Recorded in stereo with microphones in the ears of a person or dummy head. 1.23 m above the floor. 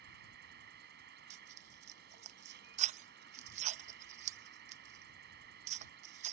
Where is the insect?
55° right (ahead or behind).